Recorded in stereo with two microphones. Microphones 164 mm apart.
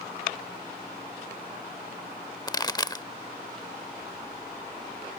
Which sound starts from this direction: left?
A pop, at 2.5 s.